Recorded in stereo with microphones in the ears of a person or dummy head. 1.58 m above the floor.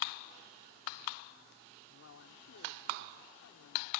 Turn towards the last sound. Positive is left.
turn(degrees=80)